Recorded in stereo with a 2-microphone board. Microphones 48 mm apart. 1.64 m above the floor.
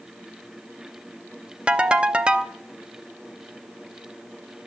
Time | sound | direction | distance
1.7 | a ringtone | 20° right (ahead or behind) | 0.5 m